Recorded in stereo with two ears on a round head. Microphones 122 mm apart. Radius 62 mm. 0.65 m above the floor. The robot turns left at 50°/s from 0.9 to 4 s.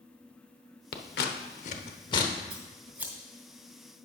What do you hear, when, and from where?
0.9 s scissors: 85° left, 0.8 m; by 2.3 s 25° left (ahead or behind), 0.8 m
2.5 s scissors: 40° right (ahead or behind), 2 m; by 3.1 s 10° right (ahead or behind), 2 m